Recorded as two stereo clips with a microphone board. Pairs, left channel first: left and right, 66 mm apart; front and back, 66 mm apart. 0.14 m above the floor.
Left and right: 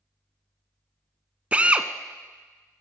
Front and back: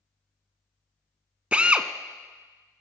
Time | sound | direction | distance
1.5 | a drill | 130° right | 0.5 m